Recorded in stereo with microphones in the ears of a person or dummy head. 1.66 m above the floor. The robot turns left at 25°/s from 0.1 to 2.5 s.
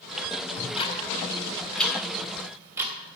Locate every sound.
0.6 s ticking: 30° left (ahead or behind), 3 m; by 2.9 s 15° right (ahead or behind), 3 m